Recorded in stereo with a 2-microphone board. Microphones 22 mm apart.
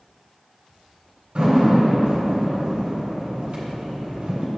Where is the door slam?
55° right (ahead or behind), 3 m.